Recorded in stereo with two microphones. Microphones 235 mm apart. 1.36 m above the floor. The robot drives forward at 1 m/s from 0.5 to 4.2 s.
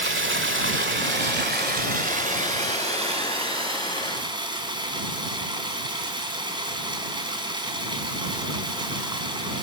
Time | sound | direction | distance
0.0 | running water | 55° right (ahead or behind) | 1.7 m